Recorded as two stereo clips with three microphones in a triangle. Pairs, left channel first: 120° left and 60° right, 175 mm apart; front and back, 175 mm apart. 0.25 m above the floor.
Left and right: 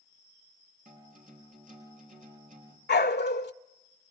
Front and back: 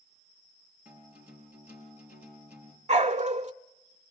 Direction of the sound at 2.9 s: 130° left.